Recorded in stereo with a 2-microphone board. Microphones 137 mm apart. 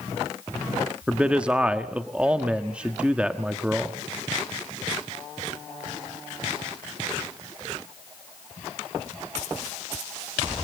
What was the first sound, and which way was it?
A man speaking, 10° right (ahead or behind).